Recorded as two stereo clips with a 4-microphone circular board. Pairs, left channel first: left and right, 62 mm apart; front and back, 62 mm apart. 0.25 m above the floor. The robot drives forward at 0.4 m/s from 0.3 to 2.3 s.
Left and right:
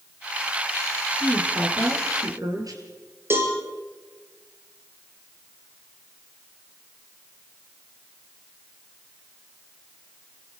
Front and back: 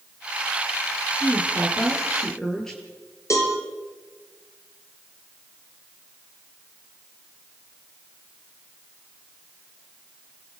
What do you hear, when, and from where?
1.2 s a woman speaking: 80° right, 6 m
3.3 s a cowbell: 40° right, 5.5 m